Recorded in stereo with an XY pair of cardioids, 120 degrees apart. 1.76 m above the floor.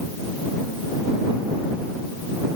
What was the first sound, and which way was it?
Only background noise.